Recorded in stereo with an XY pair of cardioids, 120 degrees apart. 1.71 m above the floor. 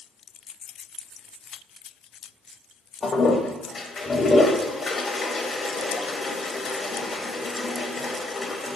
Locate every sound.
3.0 s a toilet flushing: 30° left, 0.6 m